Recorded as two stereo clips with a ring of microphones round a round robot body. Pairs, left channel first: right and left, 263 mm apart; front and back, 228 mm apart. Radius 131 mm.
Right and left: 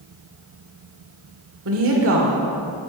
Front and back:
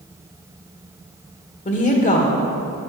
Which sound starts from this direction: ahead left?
A woman speaking, at 1.6 s.